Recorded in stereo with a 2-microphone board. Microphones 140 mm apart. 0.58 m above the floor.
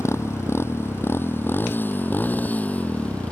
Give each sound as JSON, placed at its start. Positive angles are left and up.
{"t": 0.0, "sound": "a motorcycle", "side_deg": 20}